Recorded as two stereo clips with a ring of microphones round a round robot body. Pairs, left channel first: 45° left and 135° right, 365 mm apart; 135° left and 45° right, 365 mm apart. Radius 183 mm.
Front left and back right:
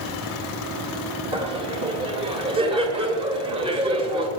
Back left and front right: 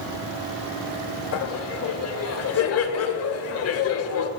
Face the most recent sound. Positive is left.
turn(degrees=155)